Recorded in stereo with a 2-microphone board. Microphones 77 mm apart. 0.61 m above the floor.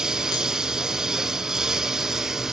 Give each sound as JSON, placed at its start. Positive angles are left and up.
{"t": 0.0, "sound": "a lawn mower", "side_deg": -5}